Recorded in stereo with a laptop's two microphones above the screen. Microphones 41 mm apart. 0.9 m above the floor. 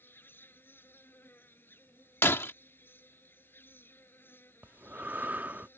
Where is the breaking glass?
75° left (ahead or behind).